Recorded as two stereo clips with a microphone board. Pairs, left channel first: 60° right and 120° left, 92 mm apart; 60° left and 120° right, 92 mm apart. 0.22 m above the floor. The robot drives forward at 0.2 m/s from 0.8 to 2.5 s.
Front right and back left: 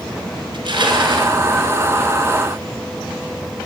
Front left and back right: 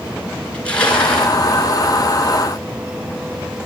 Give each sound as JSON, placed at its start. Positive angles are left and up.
{"t": 0.5, "sound": "crushing", "azimuth_deg": 140, "distance_m": 2.5}